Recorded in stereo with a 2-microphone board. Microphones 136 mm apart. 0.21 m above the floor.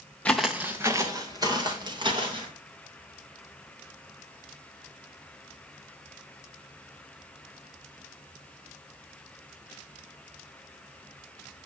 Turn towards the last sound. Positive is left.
turn(degrees=-40)  # may be behind; listen again after turning